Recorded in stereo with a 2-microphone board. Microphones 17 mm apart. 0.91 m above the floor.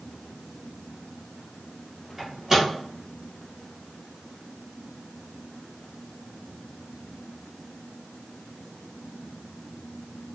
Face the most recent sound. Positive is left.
turn(degrees=-15)  # may be behind; listen again after turning